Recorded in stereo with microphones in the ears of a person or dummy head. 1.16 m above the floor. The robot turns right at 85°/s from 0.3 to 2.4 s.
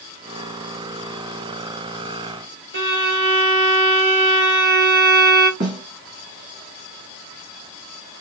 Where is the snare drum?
50° right (ahead or behind), 1.5 m.